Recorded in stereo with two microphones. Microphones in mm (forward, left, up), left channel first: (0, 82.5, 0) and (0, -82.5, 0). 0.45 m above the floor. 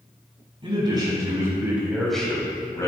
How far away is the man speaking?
About 4 m.